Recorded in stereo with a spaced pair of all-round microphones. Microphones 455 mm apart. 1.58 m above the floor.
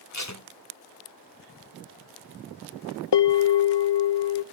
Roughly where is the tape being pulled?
Left.